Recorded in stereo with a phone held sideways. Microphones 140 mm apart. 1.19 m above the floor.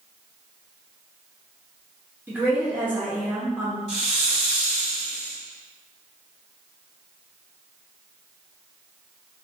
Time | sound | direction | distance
2.3 | a woman speaking | 10° right (ahead or behind) | 0.6 m
3.9 | a hiss | 50° left (ahead or behind) | 1.6 m